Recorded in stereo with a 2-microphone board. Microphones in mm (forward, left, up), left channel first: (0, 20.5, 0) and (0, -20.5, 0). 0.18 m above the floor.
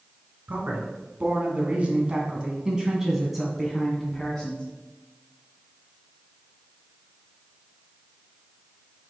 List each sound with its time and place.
0.5 s a man speaking: 50° right (ahead or behind), 1.9 m; by 4.7 s 15° left (ahead or behind), 1.7 m